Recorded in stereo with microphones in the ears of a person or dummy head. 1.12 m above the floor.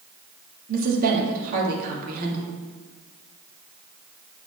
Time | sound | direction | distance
0.7 | a woman speaking | 50° right (ahead or behind) | 1.6 m